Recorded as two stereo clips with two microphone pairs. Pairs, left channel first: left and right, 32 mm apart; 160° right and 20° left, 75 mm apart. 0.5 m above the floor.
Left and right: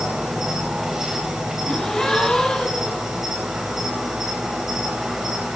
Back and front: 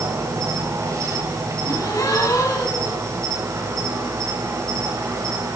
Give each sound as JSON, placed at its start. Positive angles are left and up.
{"t": 0.0, "sound": "an insect", "azimuth_deg": -20, "distance_m": 3.0}
{"t": 1.6, "sound": "a gasp", "azimuth_deg": 160, "distance_m": 2.0}